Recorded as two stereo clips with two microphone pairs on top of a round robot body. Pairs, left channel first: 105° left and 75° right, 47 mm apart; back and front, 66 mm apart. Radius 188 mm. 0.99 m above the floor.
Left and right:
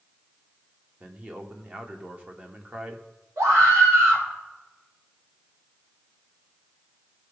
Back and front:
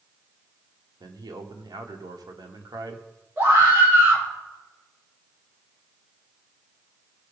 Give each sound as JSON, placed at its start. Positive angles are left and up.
{"t": 1.0, "sound": "a man speaking", "azimuth_deg": -15, "distance_m": 1.7}
{"t": 3.4, "sound": "a scream", "azimuth_deg": -60, "distance_m": 4.5}